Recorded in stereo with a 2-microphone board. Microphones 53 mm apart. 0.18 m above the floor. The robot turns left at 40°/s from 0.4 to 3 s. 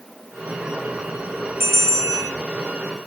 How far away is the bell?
About 1.3 m.